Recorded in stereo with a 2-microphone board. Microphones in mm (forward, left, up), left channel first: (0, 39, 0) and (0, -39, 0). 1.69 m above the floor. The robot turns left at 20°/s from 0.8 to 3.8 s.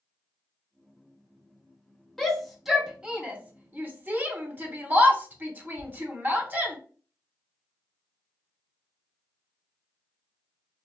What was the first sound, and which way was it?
A shout, 5° left (ahead or behind).